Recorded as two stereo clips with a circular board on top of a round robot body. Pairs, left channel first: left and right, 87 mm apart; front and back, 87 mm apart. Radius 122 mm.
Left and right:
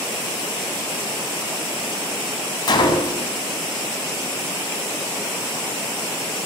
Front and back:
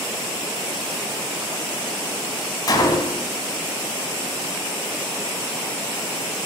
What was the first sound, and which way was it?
A gunshot, 50° left.